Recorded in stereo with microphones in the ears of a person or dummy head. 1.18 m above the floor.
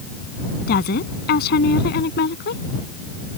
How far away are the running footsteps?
No running footsteps in this recording.